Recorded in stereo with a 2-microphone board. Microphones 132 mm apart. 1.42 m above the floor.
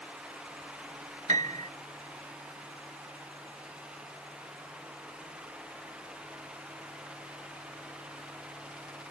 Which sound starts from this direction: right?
A piano, at 1.3 s.